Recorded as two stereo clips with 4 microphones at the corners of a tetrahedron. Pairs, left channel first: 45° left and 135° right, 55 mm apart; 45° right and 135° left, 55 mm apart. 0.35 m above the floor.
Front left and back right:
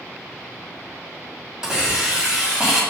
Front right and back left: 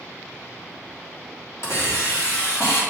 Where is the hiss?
60° right, 3 m.